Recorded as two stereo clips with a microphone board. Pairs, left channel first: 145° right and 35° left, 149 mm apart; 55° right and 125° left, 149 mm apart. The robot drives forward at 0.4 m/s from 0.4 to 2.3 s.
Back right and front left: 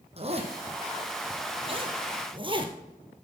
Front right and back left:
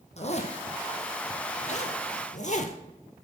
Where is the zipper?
15° right, 1.9 m; by 2.8 s 20° right, 1.2 m.